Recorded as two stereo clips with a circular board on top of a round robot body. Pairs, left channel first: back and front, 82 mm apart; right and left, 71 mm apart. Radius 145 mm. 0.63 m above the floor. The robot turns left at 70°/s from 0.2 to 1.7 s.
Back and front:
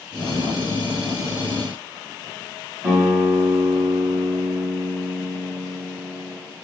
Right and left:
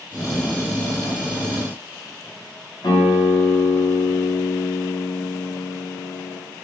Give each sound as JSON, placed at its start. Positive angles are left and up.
{"t": 2.8, "sound": "a guitar", "azimuth_deg": -65, "distance_m": 1.9}